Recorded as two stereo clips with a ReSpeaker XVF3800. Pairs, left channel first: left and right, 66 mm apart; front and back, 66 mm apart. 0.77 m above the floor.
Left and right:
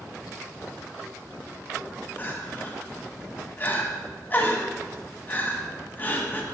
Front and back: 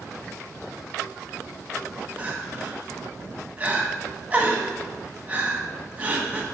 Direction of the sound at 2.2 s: 125° left.